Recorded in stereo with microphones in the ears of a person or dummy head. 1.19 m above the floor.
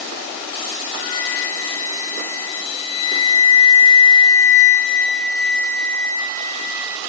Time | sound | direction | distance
0.9 | a flute | 45° left (ahead or behind) | 5.5 m